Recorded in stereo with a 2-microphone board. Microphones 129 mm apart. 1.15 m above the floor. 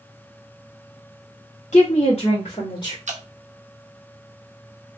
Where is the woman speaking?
60° left (ahead or behind), 1.3 m; by 3.0 s 35° left (ahead or behind), 2.0 m.